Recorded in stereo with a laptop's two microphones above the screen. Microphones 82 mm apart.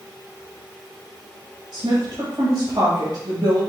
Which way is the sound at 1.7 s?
60° right (ahead or behind).